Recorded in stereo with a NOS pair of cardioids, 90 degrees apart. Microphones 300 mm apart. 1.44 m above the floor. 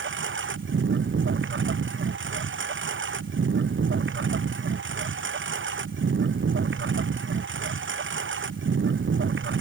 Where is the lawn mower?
40° right.